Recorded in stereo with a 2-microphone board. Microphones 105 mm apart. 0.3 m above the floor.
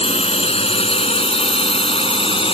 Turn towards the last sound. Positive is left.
turn(degrees=60)  # may be behind; listen again after turning